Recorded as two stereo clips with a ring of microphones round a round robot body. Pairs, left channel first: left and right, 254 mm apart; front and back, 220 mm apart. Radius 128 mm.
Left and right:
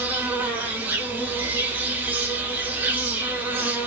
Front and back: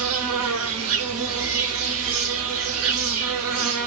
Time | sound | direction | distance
0.0 | an insect | 175° right | 0.7 m